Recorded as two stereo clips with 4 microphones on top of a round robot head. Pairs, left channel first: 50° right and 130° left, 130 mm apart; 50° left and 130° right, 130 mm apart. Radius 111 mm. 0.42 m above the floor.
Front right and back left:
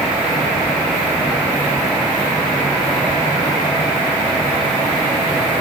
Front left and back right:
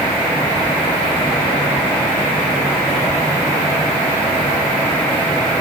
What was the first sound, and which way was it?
Only background noise.